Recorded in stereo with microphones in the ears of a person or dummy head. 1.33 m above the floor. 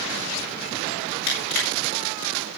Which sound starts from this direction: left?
Crushing, at 1.3 s.